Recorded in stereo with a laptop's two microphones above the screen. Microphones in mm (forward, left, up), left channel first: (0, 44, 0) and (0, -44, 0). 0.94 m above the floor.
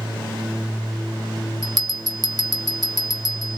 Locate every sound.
1.6 s a bell: 50° right (ahead or behind), 0.8 m